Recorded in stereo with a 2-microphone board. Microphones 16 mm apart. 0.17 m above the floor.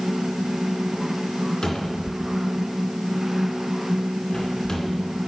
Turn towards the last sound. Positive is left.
turn(degrees=40)  # may be behind; listen again after turning